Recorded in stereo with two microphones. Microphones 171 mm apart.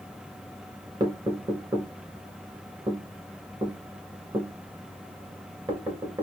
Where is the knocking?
30° right (ahead or behind), 2 m.